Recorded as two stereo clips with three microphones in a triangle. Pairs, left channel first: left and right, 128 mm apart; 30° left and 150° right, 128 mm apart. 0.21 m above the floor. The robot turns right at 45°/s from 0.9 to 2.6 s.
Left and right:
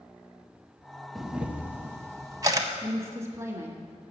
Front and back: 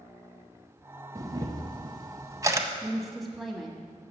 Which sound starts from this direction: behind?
A camera shutter, at 1.1 s.